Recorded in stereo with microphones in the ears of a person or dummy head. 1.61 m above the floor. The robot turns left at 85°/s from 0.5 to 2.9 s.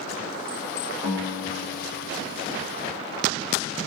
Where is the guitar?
170° right, 1.6 m; by 2.7 s 50° left, 1.6 m.